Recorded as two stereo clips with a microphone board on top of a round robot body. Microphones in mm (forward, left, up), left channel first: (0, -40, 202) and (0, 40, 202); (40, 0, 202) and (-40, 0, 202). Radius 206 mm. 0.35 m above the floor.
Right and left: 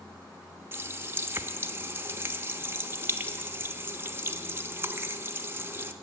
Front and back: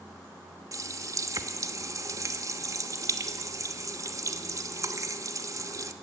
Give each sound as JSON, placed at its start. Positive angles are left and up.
{"t": 0.7, "sound": "a running tap", "azimuth_deg": 145, "distance_m": 1.1}